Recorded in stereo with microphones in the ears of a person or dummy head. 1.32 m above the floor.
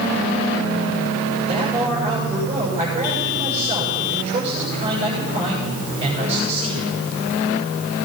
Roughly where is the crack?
No crack in this recording.